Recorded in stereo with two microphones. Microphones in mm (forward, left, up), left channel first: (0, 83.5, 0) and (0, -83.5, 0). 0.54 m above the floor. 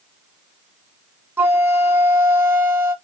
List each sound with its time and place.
1.4 s a flute: 15° right (ahead or behind), 0.7 m